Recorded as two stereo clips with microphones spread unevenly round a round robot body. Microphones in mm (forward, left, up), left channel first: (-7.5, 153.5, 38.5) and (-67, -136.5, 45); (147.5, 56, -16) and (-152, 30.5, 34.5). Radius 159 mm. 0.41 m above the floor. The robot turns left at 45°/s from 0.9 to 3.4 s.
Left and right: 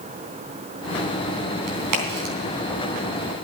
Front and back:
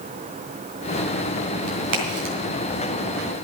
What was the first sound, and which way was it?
A crack, 110° right.